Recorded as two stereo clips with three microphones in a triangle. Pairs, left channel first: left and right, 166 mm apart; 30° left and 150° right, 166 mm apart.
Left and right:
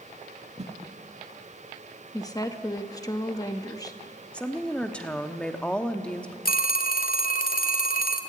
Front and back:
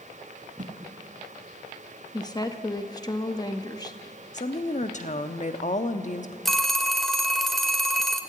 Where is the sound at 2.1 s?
55° left, 0.9 m.